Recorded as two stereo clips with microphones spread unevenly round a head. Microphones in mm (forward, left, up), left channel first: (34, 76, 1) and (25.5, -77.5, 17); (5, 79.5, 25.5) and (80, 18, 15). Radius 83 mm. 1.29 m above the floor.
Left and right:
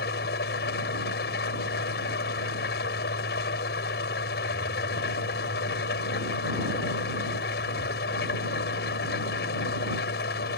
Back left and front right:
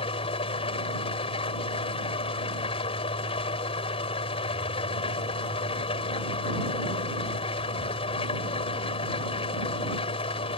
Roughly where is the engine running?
Behind left.